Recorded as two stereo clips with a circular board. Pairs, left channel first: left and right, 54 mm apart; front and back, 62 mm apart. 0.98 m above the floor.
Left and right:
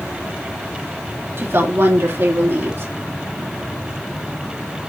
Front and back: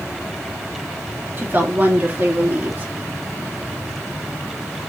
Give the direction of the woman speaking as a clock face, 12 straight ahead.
4 o'clock.